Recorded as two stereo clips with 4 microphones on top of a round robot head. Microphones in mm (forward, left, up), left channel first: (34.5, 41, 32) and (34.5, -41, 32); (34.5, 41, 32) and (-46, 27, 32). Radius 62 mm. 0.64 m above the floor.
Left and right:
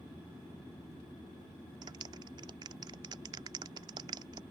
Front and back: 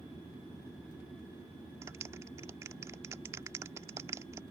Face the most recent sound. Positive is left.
turn(degrees=-115)